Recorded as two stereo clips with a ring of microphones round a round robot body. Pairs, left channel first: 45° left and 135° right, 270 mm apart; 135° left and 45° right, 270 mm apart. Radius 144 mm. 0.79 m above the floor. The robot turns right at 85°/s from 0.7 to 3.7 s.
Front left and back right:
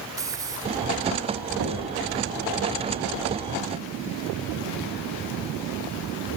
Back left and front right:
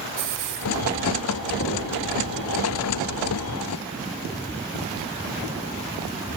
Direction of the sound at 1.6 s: 175° right.